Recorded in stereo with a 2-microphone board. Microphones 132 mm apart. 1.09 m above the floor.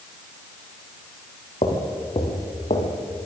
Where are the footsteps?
50° left (ahead or behind), 4.5 m; by 3.3 s 65° left (ahead or behind), 4 m.